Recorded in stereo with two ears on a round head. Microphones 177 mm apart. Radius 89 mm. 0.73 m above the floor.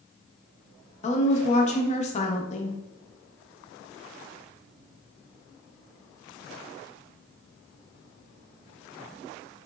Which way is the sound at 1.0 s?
35° left (ahead or behind).